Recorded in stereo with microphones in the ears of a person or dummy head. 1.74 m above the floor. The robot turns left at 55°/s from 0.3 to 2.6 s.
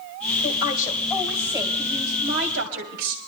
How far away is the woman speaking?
About 2.5 m.